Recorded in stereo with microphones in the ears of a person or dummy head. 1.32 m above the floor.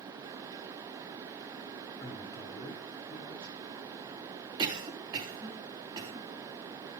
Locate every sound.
2.0 s a man speaking: 20° left (ahead or behind), 3 m
4.6 s a cough: 25° right (ahead or behind), 3.5 m